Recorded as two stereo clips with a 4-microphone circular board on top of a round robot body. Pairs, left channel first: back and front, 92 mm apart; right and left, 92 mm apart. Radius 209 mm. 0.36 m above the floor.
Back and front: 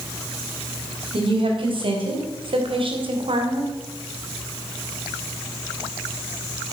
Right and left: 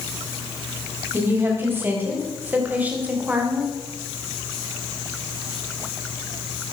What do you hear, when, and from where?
1.1 s a woman speaking: 25° left, 4 m; by 3.8 s 10° left, 3 m